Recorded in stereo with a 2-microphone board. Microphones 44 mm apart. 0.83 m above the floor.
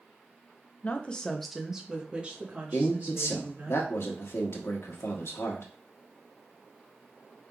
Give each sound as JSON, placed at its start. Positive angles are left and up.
{"t": 0.8, "sound": "a woman speaking", "side_deg": 35, "distance_m": 0.7}
{"t": 2.7, "sound": "a man speaking", "side_deg": 75, "distance_m": 1.2}